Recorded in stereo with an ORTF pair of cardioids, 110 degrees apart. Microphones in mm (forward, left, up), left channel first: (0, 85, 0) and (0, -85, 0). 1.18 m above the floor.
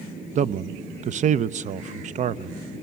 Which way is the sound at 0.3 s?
45° right.